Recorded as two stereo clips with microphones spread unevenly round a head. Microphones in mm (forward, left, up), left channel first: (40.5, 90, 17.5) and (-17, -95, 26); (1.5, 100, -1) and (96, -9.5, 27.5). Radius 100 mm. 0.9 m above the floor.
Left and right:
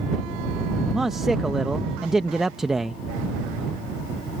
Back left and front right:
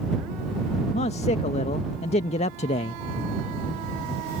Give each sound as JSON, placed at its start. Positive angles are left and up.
{"t": 0.9, "sound": "a man speaking", "azimuth_deg": 165}